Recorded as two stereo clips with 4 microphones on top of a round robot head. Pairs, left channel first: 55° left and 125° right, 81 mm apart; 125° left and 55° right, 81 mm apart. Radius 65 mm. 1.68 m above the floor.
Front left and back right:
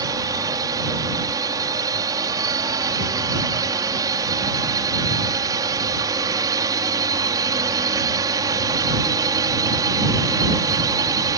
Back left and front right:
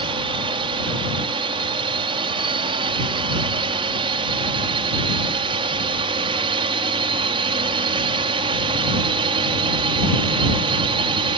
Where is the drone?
75° right.